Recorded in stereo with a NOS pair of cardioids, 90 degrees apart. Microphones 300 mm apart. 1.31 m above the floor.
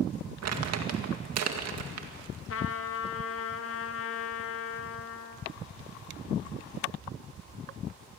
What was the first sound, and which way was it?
Crumpling, 60° right.